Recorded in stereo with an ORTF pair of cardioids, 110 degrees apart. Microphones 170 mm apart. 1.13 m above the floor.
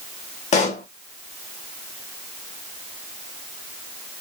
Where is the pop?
45° left, 1.0 m.